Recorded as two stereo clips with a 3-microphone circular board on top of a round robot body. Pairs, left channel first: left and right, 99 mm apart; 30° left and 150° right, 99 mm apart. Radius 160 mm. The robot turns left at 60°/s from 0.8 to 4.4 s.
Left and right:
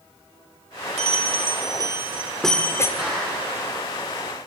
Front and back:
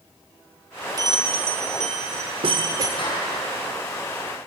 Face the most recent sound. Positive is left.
turn(degrees=-95)